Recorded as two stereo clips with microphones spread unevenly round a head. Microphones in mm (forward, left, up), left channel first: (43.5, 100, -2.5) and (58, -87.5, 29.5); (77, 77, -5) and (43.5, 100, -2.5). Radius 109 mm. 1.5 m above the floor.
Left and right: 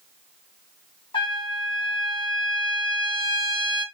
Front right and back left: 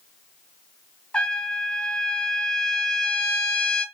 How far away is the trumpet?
About 1.2 m.